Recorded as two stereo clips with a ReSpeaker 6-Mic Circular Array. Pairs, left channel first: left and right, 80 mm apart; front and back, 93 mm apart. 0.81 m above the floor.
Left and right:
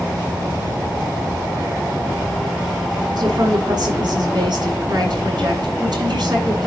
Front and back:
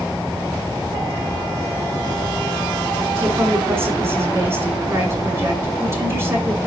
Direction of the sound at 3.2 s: 120° right.